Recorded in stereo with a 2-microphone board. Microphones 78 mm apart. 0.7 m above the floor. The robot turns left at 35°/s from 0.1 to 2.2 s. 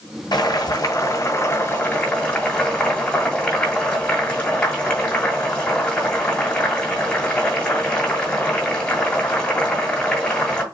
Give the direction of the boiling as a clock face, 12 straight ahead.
9 o'clock.